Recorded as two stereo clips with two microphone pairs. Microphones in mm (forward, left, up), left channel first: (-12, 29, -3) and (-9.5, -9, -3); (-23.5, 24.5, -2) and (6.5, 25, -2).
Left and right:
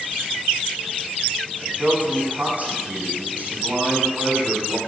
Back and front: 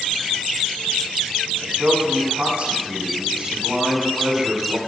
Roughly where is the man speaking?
Ahead right.